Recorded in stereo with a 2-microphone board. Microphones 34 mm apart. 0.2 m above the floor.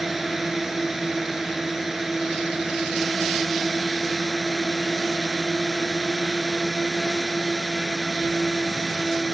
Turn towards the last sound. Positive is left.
turn(degrees=-10)  # may be behind; listen again after turning